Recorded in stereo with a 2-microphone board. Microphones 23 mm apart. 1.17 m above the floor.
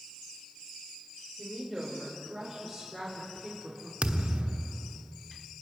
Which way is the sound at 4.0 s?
55° right (ahead or behind).